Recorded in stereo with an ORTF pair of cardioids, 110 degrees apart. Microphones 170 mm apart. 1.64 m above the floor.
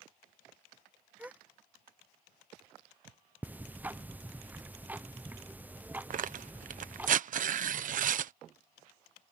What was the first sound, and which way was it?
A gasp, 10° right.